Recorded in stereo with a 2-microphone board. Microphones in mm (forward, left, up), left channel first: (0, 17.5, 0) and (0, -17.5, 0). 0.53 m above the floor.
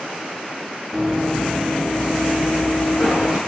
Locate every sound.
0.9 s running footsteps: centre (ahead or behind), 0.8 m; by 3.4 s 70° left (ahead or behind), 1.4 m